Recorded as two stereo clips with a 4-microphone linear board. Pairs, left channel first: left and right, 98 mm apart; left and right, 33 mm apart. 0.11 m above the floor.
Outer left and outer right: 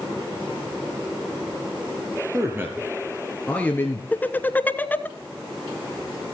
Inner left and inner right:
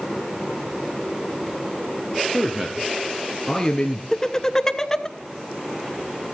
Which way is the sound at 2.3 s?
30° right (ahead or behind).